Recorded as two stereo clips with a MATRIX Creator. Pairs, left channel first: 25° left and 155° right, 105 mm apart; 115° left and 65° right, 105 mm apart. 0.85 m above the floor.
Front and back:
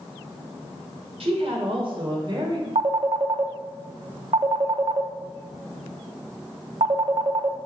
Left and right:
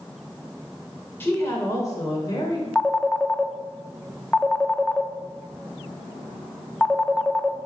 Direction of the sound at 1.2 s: Straight behind.